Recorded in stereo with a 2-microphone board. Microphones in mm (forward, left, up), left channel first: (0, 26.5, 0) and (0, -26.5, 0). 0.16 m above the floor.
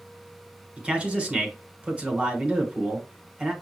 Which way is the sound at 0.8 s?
20° right (ahead or behind).